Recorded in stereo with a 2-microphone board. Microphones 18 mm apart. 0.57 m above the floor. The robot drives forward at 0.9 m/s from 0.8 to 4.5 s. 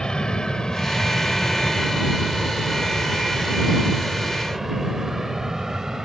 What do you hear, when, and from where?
0.0 s an aircraft: 45° left (ahead or behind); by 6.1 s 35° right (ahead or behind)